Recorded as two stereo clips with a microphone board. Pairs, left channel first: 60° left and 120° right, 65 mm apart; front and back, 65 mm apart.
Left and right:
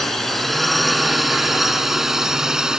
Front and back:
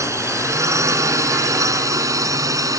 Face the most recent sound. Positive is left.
turn(degrees=160)